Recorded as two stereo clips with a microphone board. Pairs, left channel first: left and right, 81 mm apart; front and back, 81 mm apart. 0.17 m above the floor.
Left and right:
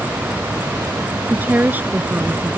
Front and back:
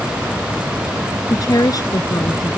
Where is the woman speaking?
25° right.